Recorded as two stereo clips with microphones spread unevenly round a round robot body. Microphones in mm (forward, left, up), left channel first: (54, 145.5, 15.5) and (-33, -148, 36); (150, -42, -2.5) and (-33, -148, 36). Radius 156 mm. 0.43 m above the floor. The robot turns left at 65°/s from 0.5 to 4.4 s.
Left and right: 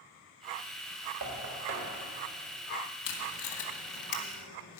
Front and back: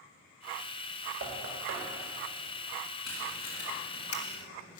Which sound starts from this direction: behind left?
Tape being pulled, at 3.0 s.